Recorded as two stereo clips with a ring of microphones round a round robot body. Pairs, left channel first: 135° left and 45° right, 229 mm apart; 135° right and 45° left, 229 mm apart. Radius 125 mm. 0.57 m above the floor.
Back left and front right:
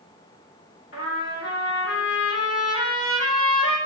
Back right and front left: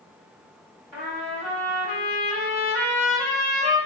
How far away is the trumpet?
About 2.0 m.